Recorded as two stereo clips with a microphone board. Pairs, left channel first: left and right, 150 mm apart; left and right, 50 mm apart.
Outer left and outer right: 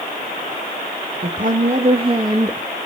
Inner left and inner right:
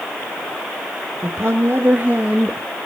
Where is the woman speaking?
65° right (ahead or behind), 2.0 m; by 2.6 s 15° right (ahead or behind), 1.7 m.